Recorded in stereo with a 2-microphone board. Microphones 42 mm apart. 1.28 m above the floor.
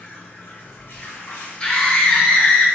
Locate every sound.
0.0 s running water: 60° left (ahead or behind), 0.8 m
1.6 s a scream: 25° left (ahead or behind), 1.1 m